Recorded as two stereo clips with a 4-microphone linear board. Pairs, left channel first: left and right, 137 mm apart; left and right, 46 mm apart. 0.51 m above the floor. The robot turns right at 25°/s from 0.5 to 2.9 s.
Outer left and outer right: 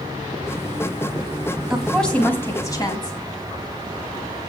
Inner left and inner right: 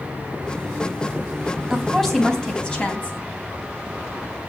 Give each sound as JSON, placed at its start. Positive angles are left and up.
{"t": 1.7, "sound": "a woman speaking", "azimuth_deg": 0, "distance_m": 3.5}